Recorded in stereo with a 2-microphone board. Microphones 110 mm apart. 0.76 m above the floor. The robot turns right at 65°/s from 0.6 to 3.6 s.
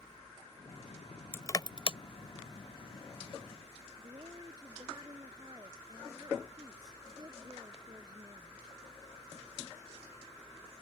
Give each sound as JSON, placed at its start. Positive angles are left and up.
{"t": 1.3, "sound": "crushing", "side_deg": 20}
{"t": 4.0, "sound": "a woman speaking", "side_deg": -35}